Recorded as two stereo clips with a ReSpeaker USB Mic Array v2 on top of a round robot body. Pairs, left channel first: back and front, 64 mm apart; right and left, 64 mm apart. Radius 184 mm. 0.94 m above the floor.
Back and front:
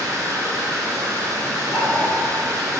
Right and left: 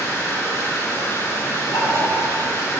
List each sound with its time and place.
0.0 s running water: 35° right, 0.7 m
1.7 s knocking: 120° right, 2 m